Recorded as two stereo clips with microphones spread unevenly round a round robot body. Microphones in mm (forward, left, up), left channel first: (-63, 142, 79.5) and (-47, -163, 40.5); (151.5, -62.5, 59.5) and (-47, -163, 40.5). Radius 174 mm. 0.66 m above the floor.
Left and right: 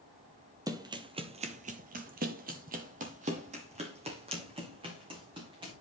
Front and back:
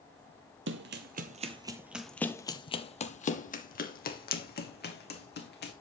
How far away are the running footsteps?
About 0.9 m.